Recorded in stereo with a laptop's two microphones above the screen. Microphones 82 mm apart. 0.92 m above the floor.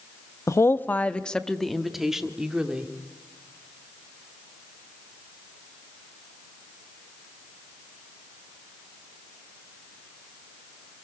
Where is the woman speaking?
40° left (ahead or behind), 0.8 m; by 2.9 s 15° right (ahead or behind), 2 m.